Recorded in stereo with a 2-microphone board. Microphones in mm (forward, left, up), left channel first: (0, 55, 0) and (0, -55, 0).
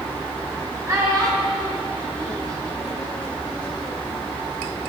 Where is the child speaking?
30° right (ahead or behind), 3 m.